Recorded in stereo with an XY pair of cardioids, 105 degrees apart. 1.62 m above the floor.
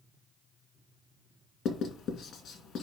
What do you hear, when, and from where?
1.6 s writing: 65° left, 2 m